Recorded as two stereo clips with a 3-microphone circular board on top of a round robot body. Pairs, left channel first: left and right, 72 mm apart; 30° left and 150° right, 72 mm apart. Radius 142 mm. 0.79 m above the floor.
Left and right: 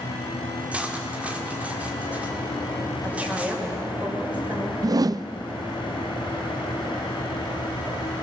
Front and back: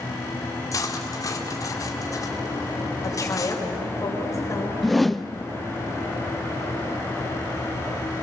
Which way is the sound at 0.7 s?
15° right.